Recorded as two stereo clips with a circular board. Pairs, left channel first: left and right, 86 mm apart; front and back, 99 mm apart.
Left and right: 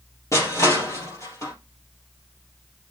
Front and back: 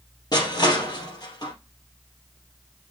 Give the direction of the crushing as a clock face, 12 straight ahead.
11 o'clock.